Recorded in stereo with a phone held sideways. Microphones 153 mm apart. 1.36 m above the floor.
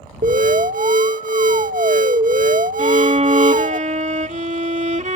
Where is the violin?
55° right (ahead or behind).